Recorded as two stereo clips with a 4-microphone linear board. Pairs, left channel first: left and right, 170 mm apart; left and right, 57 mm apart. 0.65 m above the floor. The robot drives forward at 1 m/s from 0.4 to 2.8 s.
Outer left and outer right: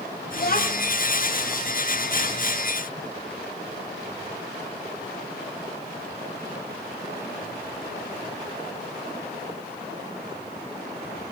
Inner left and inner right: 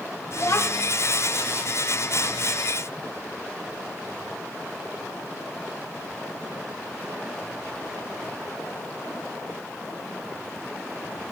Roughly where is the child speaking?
Left.